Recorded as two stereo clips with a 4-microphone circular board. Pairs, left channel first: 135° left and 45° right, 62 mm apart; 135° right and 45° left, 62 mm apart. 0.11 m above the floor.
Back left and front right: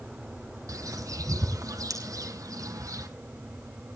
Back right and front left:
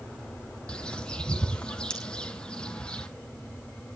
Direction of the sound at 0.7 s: 60° right.